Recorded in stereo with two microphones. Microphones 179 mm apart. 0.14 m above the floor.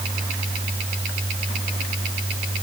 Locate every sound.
Only background noise.